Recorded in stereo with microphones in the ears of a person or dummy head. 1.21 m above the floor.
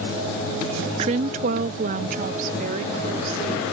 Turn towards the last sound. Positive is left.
turn(degrees=-55)  # may be behind; listen again after turning